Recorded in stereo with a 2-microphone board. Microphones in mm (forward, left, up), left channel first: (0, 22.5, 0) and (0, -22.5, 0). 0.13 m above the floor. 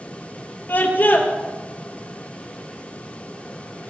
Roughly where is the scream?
Left.